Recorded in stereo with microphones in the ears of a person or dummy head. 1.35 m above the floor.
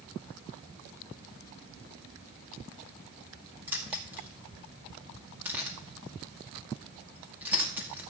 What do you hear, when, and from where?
3.7 s keys jangling: 10° right (ahead or behind), 2 m